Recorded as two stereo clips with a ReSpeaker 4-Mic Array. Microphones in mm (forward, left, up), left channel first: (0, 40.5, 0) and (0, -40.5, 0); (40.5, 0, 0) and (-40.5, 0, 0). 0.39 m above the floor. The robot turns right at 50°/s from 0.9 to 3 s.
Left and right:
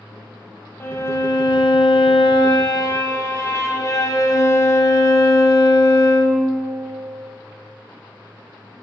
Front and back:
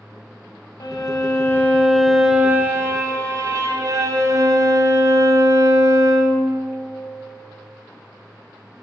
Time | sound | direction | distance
0.8 | a violin | 30° left | 0.8 m